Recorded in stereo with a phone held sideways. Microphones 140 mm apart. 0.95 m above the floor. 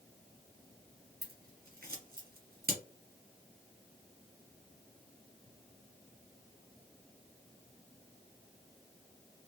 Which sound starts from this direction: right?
Scissors, at 1.2 s.